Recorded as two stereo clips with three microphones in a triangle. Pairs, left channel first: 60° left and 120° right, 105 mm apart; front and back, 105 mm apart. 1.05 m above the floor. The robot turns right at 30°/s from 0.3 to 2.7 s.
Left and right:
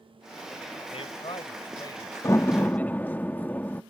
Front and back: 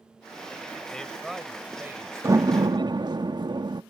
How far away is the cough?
No cough in this recording.